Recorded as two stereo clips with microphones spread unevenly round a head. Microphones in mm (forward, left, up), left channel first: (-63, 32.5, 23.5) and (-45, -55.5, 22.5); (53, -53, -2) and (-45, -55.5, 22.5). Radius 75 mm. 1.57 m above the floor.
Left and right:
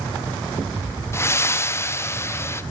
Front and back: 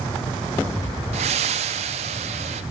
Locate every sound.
1.1 s breathing: 160° left, 0.8 m